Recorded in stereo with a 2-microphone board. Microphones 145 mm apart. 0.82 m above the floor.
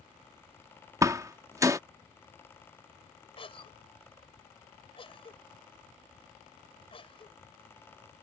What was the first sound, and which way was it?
A door slam, 20° right (ahead or behind).